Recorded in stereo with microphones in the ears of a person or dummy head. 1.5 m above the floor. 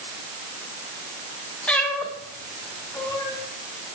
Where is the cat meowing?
5° left (ahead or behind), 2.5 m; by 3.4 s 15° left (ahead or behind), 3.5 m.